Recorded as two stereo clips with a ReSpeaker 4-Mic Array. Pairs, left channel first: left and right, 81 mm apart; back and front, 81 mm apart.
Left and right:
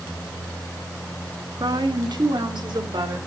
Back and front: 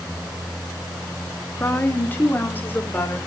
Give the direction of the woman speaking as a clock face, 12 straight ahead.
4 o'clock.